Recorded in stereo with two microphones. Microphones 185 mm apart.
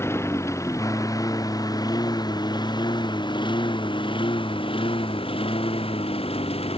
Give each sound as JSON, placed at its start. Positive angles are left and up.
{"t": 0.0, "sound": "a lawn mower", "side_deg": 15}